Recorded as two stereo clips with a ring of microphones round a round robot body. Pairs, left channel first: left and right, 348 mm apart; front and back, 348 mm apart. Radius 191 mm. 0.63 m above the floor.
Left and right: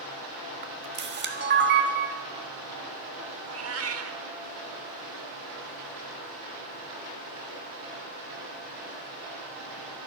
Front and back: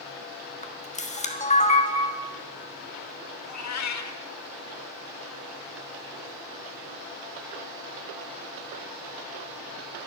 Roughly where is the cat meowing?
Ahead right.